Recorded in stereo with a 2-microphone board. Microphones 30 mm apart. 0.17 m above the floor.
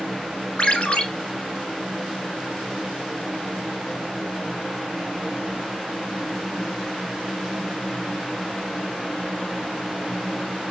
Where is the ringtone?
40° left (ahead or behind), 0.7 m.